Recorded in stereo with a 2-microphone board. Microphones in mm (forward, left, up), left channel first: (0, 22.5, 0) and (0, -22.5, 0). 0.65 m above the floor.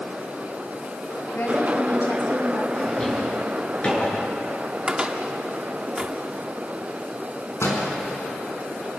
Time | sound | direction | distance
1.3 | a woman speaking | 60° left (ahead or behind) | 5 m
2.7 | a drawer | 25° left (ahead or behind) | 5 m
4.9 | a cupboard door | 20° right (ahead or behind) | 1.4 m
7.6 | a door slam | 85° left | 4.5 m